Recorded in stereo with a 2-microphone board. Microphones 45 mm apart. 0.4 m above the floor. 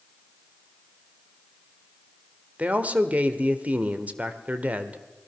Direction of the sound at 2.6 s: 35° right (ahead or behind).